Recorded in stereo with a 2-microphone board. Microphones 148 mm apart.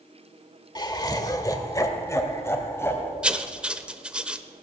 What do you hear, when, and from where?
0.8 s laughter: 25° left (ahead or behind), 1.2 m; by 3.1 s 15° left (ahead or behind), 2.5 m
3.2 s writing: 5° right (ahead or behind), 0.6 m